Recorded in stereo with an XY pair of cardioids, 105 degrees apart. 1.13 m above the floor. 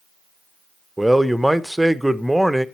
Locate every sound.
1.0 s a man speaking: 5° right, 0.6 m